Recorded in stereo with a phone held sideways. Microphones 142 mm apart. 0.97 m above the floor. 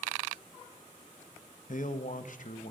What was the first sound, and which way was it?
A man speaking, 65° left (ahead or behind).